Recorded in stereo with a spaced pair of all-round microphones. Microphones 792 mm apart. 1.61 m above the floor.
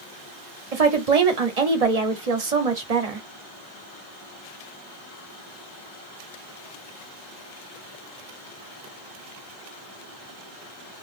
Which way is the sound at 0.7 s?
50° right (ahead or behind).